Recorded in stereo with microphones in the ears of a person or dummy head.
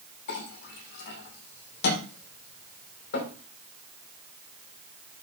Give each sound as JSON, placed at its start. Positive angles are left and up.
{"t": 0.3, "sound": "a clink", "side_deg": 70, "distance_m": 2.5}